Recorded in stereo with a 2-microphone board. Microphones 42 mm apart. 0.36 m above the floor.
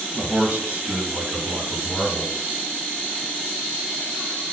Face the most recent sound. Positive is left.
turn(degrees=-25)  # may be behind; listen again after turning